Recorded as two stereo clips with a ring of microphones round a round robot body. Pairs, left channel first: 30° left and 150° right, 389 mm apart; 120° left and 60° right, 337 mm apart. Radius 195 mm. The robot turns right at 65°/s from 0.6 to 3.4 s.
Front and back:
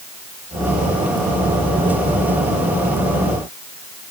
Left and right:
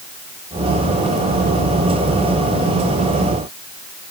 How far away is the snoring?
I don't hear snoring.